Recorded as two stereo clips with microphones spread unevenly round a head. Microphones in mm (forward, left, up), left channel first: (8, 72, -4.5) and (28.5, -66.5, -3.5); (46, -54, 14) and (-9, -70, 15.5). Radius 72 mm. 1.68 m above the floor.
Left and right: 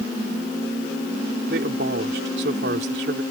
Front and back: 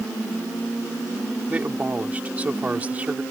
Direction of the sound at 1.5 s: 100° right.